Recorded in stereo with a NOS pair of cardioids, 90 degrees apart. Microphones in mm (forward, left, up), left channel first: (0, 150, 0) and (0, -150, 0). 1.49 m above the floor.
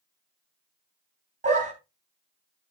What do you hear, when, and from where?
1.4 s a dog barking: 25° right, 3.5 m